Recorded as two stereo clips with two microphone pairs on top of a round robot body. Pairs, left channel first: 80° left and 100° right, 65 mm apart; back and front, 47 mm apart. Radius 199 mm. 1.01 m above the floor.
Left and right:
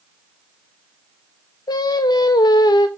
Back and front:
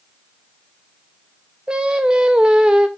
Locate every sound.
1.7 s singing: 75° left, 0.5 m